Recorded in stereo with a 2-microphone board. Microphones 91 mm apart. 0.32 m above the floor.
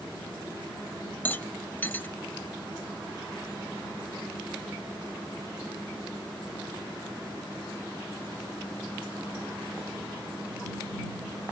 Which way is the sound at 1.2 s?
20° left (ahead or behind).